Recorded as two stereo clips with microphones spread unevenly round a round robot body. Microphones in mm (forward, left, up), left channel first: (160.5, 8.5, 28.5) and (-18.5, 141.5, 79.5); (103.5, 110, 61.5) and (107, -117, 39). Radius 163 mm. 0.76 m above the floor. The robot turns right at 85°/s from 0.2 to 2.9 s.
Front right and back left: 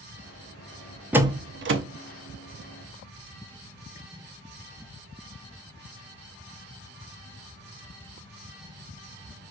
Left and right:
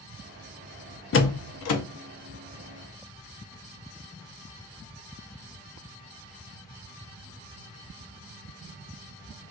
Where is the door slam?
55° left, 0.7 m; by 1.8 s 115° left, 0.7 m.